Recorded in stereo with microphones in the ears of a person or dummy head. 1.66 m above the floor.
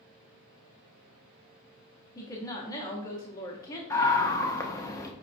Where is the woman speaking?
20° left (ahead or behind), 0.9 m.